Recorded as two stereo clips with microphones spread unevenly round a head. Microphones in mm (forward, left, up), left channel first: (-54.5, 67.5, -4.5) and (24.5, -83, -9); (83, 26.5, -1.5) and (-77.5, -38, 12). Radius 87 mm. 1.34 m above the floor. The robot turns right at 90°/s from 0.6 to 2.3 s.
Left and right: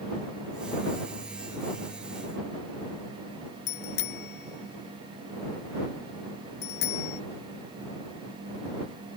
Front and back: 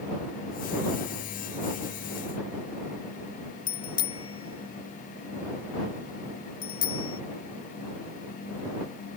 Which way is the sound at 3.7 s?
90° left.